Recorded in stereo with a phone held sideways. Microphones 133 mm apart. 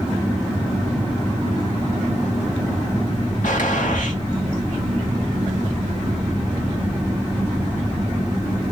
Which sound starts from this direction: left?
A gunshot, at 3.4 s.